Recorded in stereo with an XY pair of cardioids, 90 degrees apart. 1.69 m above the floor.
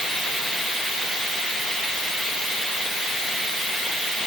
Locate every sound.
Only background noise.